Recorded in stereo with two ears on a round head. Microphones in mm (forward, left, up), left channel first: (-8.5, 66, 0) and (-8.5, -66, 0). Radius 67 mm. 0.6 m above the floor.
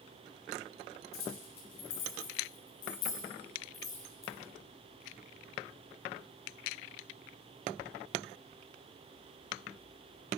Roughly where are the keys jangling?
Left.